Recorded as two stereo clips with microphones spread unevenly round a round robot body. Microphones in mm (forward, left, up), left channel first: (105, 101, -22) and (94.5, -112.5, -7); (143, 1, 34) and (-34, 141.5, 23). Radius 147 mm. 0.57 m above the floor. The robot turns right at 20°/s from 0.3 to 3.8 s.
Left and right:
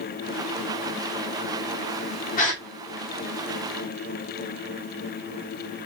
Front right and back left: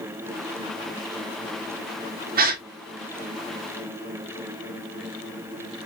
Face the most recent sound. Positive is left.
turn(degrees=150)